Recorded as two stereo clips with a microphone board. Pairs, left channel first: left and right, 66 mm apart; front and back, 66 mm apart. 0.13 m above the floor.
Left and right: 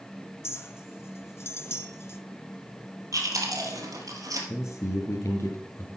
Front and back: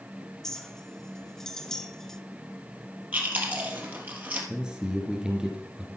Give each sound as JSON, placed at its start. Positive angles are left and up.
{"t": 0.4, "sound": "a clink", "azimuth_deg": 75, "distance_m": 0.8}
{"t": 3.1, "sound": "chewing", "azimuth_deg": -120, "distance_m": 2.5}
{"t": 4.5, "sound": "a man speaking", "azimuth_deg": 100, "distance_m": 1.8}